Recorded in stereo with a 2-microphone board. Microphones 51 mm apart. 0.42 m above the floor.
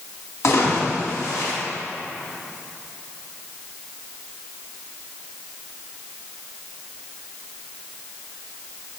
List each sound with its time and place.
0.4 s a splash: 70° left (ahead or behind), 4 m